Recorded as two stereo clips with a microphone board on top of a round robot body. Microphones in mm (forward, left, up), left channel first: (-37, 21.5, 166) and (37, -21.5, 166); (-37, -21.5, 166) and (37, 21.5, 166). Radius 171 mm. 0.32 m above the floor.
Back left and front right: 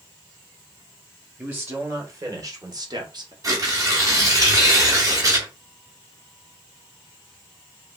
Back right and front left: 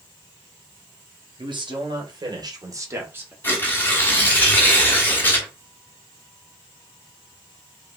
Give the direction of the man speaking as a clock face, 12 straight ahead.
11 o'clock.